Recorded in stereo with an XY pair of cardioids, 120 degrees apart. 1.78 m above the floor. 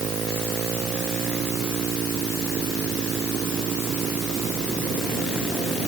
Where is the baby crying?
I don't hear a baby crying.